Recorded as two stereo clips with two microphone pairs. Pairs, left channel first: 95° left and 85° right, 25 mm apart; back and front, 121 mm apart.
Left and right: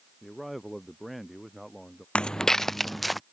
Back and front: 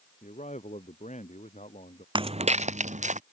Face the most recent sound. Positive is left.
turn(degrees=5)